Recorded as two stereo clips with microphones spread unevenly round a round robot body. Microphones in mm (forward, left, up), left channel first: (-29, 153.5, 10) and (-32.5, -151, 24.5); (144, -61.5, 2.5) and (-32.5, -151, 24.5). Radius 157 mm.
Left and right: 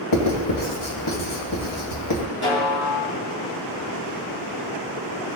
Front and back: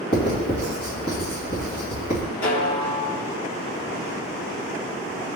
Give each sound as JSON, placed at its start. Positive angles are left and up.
{"t": 0.1, "sound": "writing", "azimuth_deg": 75, "distance_m": 2.0}
{"t": 2.4, "sound": "a snare drum", "azimuth_deg": 35, "distance_m": 2.5}